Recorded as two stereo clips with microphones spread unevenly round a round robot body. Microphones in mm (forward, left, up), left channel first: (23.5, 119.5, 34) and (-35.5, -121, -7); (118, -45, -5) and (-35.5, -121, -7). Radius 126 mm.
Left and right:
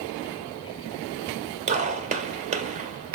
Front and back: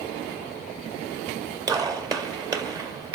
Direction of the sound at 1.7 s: 100° right.